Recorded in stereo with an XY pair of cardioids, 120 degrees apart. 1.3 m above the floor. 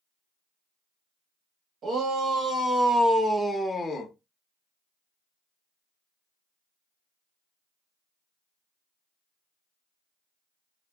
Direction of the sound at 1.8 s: 45° right.